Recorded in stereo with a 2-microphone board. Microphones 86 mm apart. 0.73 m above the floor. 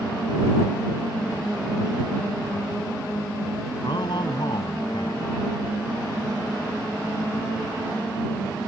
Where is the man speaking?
65° left (ahead or behind).